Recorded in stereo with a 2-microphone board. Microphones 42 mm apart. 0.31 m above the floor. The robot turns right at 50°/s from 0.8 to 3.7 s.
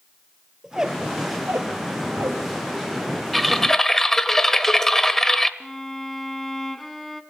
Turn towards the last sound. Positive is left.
turn(degrees=5)  # may be behind; listen again after turning